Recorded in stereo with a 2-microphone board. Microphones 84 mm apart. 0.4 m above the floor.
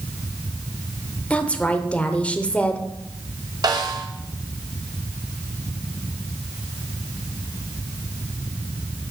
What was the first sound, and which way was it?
A woman speaking, 15° left (ahead or behind).